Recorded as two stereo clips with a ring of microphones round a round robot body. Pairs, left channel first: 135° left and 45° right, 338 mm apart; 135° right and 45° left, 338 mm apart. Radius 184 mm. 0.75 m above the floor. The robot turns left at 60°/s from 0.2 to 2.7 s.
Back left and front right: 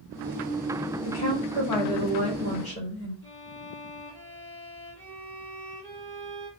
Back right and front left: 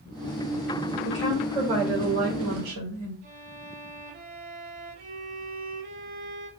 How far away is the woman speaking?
About 4 m.